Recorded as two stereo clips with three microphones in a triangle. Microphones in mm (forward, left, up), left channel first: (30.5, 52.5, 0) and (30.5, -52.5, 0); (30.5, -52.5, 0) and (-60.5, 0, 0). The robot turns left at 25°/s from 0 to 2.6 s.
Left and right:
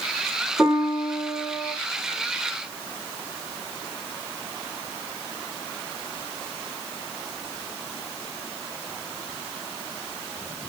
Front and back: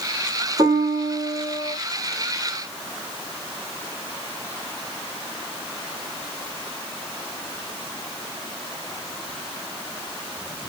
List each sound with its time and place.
0.6 s a piano: 170° right, 1.4 m; by 1.8 s 160° left, 1.4 m